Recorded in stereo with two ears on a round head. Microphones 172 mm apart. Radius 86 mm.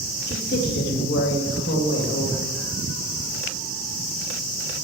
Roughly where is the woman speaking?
Left.